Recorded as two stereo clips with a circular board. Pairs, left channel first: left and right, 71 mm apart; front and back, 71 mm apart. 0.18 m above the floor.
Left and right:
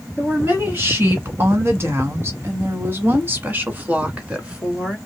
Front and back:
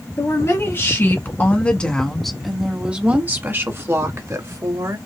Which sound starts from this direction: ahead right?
A woman speaking, at 0.2 s.